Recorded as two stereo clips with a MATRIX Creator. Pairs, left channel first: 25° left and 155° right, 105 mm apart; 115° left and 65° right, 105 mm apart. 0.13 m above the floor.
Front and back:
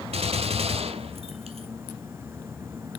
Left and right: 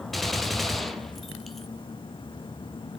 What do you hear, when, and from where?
0.1 s a gunshot: 160° right, 1.1 m